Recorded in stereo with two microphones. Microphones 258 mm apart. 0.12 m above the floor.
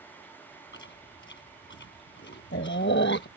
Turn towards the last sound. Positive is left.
turn(degrees=50)  # may be behind; listen again after turning